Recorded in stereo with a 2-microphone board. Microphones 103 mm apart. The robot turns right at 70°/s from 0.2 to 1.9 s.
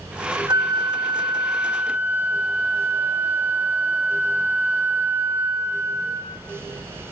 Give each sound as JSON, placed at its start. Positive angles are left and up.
{"t": 0.5, "sound": "a flute", "azimuth_deg": -125, "distance_m": 0.8}